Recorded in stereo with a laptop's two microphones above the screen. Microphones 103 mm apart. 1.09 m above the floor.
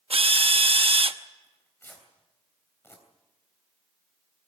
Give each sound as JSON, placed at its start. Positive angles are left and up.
{"t": 0.1, "sound": "a drill", "side_deg": -65, "distance_m": 0.8}
{"t": 1.4, "sound": "tearing paper", "side_deg": 20, "distance_m": 3.0}